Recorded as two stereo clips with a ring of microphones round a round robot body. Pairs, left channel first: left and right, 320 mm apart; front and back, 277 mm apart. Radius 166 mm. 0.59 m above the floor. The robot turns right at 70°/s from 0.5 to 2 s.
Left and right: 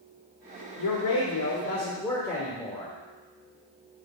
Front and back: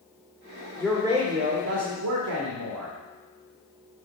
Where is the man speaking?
85° left, 1.9 m; by 3.0 s 170° left, 1.9 m.